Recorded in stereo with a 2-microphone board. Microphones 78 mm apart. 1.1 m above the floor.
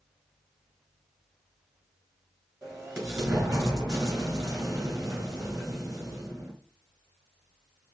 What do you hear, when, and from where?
2.6 s an explosion: 45° right (ahead or behind), 2 m